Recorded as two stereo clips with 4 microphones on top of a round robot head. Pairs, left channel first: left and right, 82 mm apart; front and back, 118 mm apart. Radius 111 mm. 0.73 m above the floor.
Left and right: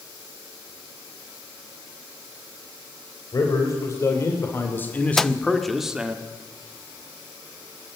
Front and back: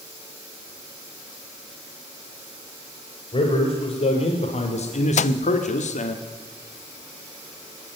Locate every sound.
3.3 s a man speaking: 45° left, 3.5 m; by 6.2 s 15° right, 1.7 m
5.2 s a microwave: 5° left, 0.5 m